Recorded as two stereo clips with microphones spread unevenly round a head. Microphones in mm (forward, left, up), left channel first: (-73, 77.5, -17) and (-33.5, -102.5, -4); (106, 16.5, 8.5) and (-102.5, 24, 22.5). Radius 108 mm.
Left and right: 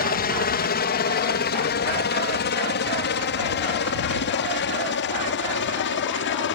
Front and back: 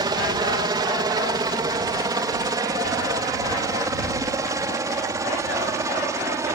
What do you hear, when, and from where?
0.0 s a helicopter: 110° left; by 6.5 s 105° left